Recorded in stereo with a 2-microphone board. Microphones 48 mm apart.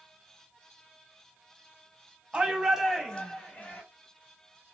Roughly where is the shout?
Right.